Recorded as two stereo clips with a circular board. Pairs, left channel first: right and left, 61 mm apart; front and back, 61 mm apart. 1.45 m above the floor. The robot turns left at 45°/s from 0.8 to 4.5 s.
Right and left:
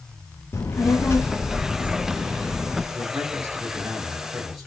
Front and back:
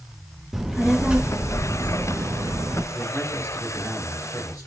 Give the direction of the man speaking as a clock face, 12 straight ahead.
9 o'clock.